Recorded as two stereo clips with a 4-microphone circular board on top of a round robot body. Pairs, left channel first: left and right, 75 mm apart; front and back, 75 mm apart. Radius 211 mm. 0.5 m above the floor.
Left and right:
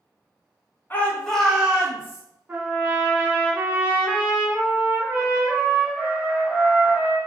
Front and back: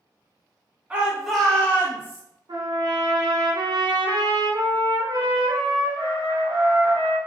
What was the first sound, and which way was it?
A shout, 125° left.